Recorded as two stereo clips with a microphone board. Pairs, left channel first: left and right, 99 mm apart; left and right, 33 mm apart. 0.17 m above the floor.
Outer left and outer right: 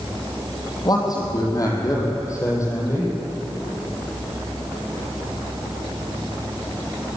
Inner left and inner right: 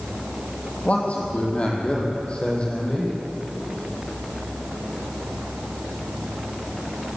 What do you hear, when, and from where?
0.8 s a man speaking: 40° left (ahead or behind), 6 m; by 3.1 s 25° left (ahead or behind), 6.5 m